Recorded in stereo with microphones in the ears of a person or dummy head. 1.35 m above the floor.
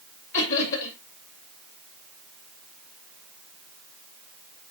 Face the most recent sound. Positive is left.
turn(degrees=60)  # may be behind; listen again after turning